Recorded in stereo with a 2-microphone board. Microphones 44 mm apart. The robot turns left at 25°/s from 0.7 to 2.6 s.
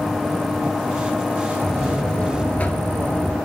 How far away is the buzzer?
About 1.0 m.